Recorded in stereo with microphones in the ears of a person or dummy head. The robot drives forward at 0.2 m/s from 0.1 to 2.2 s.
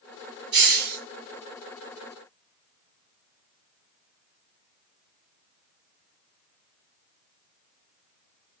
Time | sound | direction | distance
0.5 | a hiss | 50° right (ahead or behind) | 1.6 m